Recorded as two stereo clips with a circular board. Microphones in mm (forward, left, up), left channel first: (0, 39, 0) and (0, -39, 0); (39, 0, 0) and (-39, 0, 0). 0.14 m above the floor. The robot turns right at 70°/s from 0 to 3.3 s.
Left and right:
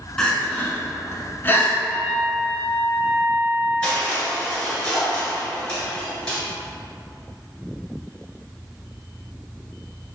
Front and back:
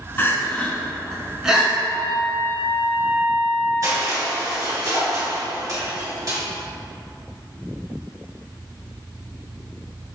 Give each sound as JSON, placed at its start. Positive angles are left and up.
{"t": 0.2, "sound": "crying", "azimuth_deg": 15, "distance_m": 0.9}
{"t": 1.9, "sound": "a trumpet", "azimuth_deg": 160, "distance_m": 1.1}
{"t": 3.8, "sound": "crushing", "azimuth_deg": 165, "distance_m": 2.0}